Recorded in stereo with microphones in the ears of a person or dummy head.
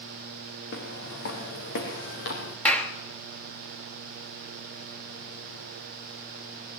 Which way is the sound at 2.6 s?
10° left (ahead or behind).